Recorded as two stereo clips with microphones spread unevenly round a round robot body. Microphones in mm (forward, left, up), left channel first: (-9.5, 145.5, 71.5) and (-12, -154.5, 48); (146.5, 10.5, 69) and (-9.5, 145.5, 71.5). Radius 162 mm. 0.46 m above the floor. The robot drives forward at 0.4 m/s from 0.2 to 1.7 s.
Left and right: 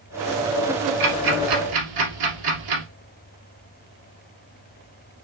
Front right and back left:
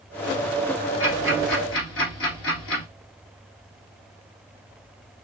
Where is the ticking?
80° right, 2 m; by 2.8 s 90° right, 2 m.